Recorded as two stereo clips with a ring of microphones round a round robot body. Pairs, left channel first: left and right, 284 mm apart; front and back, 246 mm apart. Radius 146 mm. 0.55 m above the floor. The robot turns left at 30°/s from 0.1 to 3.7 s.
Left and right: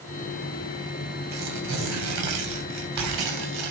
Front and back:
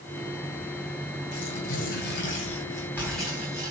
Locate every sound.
1.3 s tearing paper: 35° right, 2.5 m; by 3.7 s 105° right, 2.5 m